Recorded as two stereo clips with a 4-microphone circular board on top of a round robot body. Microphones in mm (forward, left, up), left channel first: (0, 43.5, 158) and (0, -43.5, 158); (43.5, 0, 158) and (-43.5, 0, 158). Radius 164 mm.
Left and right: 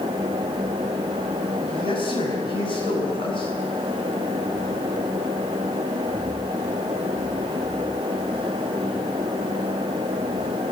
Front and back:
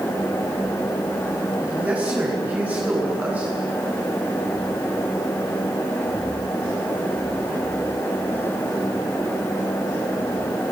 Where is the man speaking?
105° left, 9 m.